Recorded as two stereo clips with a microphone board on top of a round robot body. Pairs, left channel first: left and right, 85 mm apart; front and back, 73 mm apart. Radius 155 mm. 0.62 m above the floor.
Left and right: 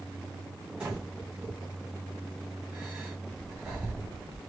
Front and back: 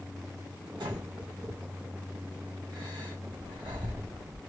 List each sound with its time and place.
0.8 s breathing: 165° right, 1.5 m